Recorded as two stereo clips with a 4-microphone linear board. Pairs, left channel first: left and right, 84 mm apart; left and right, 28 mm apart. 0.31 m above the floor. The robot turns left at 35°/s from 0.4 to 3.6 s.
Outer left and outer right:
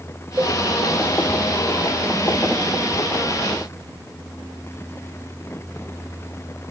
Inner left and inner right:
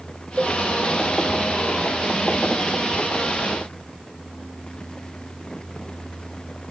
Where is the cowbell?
20° right (ahead or behind), 0.7 m.